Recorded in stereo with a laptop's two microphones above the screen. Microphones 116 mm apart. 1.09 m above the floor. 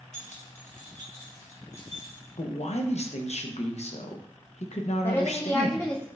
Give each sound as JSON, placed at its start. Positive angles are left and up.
{"t": 0.1, "sound": "keys jangling", "side_deg": 80, "distance_m": 0.9}
{"t": 2.4, "sound": "a man speaking", "side_deg": 65, "distance_m": 0.6}
{"t": 5.0, "sound": "a woman speaking", "side_deg": 20, "distance_m": 0.7}